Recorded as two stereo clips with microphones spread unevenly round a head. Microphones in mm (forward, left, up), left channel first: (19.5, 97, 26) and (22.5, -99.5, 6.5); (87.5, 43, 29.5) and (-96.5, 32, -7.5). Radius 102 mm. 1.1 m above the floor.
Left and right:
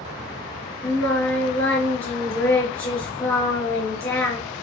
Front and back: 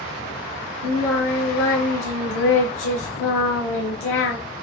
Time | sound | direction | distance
0.8 | singing | 15° left | 4 m